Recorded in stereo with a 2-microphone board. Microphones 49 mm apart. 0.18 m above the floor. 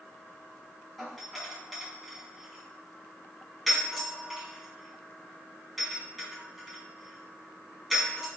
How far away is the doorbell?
About 1.7 m.